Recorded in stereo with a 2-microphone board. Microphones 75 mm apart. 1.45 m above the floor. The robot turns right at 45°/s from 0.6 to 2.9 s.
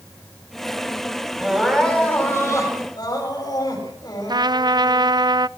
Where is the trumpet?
65° right (ahead or behind), 0.5 m.